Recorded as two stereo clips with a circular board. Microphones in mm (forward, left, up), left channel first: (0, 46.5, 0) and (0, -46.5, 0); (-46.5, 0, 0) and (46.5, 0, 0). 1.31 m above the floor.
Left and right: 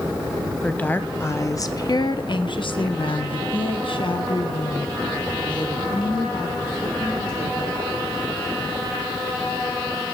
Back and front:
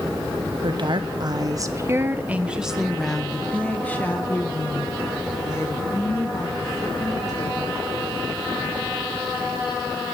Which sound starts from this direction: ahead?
A woman speaking, at 0.6 s.